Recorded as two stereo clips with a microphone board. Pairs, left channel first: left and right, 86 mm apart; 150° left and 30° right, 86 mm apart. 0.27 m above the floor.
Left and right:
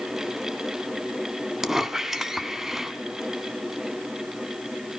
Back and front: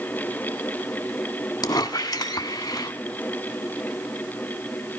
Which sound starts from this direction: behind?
A squeak, at 1.6 s.